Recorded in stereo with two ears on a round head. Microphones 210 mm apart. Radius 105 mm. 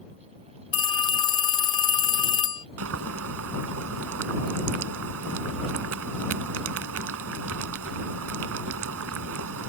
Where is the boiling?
65° right (ahead or behind).